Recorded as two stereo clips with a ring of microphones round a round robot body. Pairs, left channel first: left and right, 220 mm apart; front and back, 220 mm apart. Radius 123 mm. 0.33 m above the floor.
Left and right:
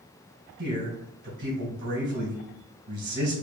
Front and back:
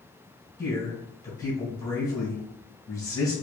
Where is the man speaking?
70° right, 2 m.